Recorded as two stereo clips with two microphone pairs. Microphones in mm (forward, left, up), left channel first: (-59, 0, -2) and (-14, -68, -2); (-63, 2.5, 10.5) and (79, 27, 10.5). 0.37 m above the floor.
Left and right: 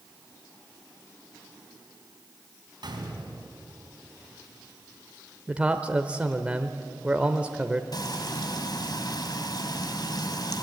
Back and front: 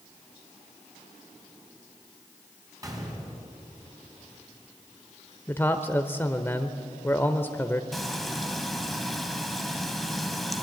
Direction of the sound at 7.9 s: 100° left.